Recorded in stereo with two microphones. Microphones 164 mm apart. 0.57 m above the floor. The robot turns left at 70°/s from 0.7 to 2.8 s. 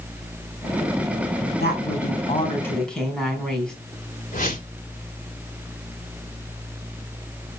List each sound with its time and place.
1.6 s a woman speaking: 90° left, 4 m; by 3.7 s 5° left, 4 m
4.3 s a whoosh: 55° left (ahead or behind), 2 m